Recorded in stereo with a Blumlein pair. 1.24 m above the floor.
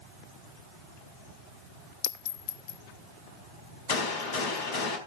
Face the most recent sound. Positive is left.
turn(degrees=55)